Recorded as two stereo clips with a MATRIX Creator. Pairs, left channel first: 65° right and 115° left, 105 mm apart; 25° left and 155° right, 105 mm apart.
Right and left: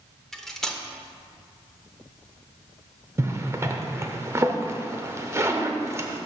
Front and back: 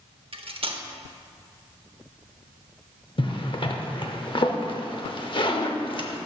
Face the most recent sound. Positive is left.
turn(degrees=50)